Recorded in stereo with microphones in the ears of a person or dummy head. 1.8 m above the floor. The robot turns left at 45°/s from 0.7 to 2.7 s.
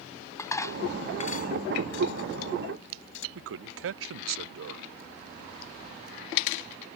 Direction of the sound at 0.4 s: 15° left (ahead or behind).